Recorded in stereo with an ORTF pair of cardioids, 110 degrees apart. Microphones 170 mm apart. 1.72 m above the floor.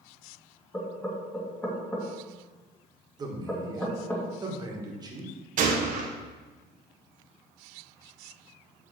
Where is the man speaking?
25° right, 1.7 m.